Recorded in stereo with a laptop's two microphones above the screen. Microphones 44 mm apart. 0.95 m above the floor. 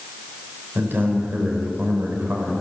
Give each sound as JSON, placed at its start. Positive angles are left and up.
{"t": 0.8, "sound": "a man speaking", "side_deg": -50, "distance_m": 4.0}